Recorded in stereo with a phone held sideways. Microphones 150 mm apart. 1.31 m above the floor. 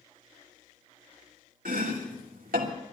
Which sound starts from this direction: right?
Chopping, at 1.6 s.